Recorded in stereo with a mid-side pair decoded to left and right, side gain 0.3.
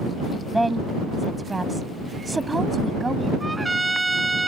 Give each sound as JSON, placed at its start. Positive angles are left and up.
{"t": 0.5, "sound": "a woman speaking", "azimuth_deg": -10}
{"t": 3.4, "sound": "a trumpet", "azimuth_deg": -25}